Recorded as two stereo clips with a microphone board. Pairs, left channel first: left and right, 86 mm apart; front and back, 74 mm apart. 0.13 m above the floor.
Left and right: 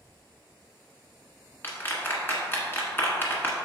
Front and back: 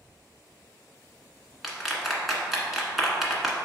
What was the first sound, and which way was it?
A clap, 90° left.